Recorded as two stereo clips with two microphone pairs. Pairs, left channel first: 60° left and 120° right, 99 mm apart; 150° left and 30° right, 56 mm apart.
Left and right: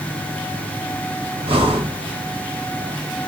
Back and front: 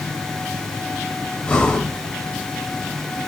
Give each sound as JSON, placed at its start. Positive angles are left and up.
{"t": 1.4, "sound": "breathing", "azimuth_deg": -140, "distance_m": 0.7}